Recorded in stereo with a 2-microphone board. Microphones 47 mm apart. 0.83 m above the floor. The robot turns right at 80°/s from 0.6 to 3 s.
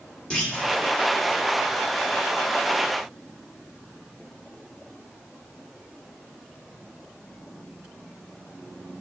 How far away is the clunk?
About 2 m.